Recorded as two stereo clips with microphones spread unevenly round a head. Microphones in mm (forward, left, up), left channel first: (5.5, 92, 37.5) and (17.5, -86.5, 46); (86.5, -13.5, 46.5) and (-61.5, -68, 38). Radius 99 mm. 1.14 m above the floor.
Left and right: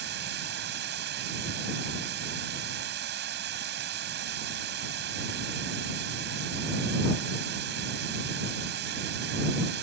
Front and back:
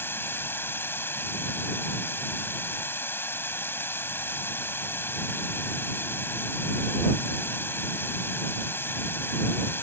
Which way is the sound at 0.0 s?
55° right.